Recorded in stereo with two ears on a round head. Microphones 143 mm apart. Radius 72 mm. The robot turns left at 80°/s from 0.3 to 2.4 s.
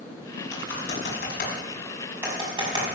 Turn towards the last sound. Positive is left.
turn(degrees=-25)  # may be behind; listen again after turning